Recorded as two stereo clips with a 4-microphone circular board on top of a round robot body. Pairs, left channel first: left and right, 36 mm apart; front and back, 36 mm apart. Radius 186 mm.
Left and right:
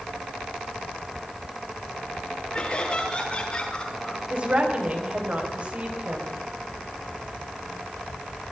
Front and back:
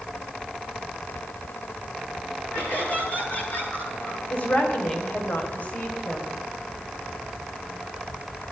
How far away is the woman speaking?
About 4 m.